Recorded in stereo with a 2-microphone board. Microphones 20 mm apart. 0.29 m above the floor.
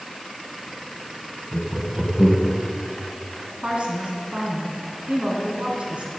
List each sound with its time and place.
1.5 s laughter: 50° right (ahead or behind), 2 m; by 2.6 s 30° right (ahead or behind), 1.9 m
3.6 s a woman speaking: 70° right (ahead or behind), 3 m